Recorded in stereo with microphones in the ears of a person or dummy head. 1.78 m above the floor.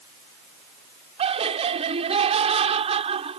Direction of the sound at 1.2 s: 30° right (ahead or behind).